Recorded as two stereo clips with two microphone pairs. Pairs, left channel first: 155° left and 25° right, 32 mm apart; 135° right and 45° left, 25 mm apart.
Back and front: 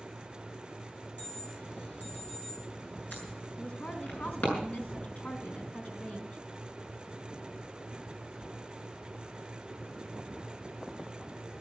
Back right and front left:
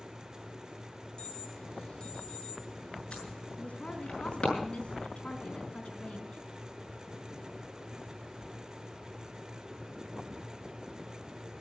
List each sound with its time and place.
1.2 s an alarm: 170° left, 7 m
3.6 s a woman speaking: 175° right, 3 m